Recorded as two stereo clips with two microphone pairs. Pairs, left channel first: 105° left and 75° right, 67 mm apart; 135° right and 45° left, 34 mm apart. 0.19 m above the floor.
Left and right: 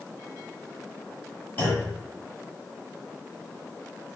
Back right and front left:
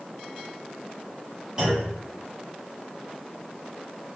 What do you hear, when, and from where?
1.6 s a clunk: 85° left, 1.4 m